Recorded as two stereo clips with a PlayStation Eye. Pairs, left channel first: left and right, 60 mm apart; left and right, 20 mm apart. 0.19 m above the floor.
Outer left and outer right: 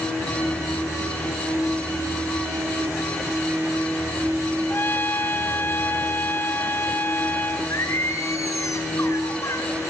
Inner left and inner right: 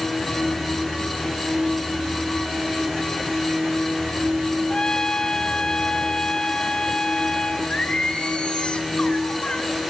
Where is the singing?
55° left (ahead or behind), 2.5 m.